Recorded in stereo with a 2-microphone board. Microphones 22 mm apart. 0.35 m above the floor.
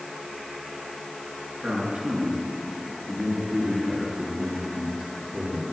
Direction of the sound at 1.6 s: 75° right (ahead or behind).